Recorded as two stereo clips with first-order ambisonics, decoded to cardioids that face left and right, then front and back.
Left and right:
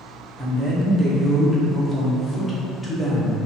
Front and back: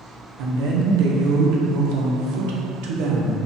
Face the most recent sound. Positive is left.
turn(degrees=165)